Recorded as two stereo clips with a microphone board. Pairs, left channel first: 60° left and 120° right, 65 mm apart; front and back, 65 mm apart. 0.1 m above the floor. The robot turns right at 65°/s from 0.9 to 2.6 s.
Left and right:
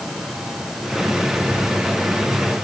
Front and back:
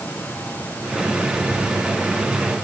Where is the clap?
No clap in this recording.